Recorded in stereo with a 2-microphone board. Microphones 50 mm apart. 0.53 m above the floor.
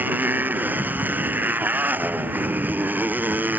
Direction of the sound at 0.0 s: 40° right (ahead or behind).